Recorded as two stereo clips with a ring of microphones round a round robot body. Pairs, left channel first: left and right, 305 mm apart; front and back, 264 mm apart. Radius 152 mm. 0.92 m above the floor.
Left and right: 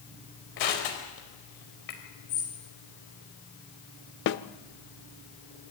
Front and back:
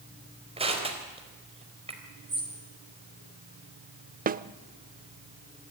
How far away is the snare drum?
About 0.7 m.